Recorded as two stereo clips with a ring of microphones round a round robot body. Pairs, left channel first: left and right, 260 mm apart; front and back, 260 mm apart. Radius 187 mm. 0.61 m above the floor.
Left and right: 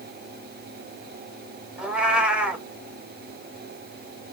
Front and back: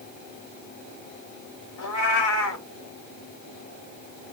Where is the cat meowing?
5° right, 1.1 m.